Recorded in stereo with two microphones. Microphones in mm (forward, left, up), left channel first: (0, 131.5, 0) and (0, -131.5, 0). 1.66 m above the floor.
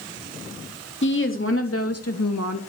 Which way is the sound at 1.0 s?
45° left (ahead or behind).